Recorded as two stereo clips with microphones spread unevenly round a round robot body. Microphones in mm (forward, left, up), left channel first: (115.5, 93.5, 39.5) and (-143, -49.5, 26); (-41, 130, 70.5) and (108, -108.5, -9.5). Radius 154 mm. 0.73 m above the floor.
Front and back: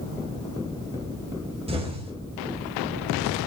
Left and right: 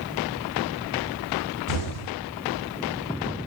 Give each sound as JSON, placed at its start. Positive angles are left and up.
{"t": 1.7, "sound": "an explosion", "azimuth_deg": 140, "distance_m": 3.5}